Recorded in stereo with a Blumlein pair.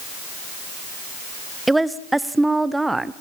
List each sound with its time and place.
1.7 s a woman speaking: 5° right, 0.7 m